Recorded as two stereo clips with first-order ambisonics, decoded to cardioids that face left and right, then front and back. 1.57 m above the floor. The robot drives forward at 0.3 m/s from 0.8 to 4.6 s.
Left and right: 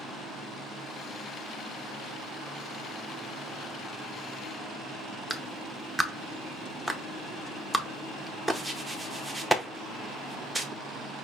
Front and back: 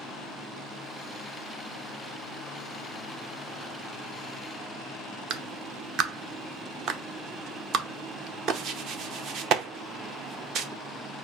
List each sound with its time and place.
5.3 s a clap: straight behind, 0.6 m